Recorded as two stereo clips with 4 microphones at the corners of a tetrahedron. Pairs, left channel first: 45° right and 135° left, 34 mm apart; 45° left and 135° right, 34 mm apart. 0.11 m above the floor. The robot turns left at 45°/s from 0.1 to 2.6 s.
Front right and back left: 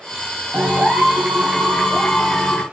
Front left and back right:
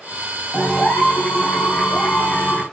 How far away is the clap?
About 6.5 m.